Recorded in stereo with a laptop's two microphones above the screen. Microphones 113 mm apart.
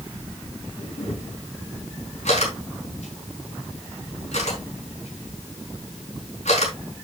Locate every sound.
0.8 s a camera shutter: 80° left, 4.5 m